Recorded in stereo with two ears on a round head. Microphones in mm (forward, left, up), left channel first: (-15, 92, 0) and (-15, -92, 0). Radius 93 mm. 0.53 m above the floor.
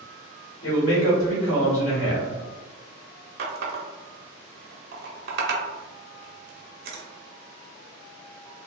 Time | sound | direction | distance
0.6 | a man speaking | 65° left (ahead or behind) | 1.5 m
3.4 | a running tap | 50° right (ahead or behind) | 0.5 m